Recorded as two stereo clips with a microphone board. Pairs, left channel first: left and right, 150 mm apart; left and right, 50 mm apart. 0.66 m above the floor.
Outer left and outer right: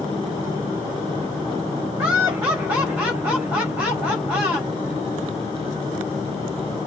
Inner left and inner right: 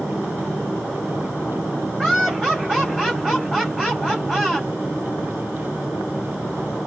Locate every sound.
2.0 s laughter: 10° right (ahead or behind), 3.5 m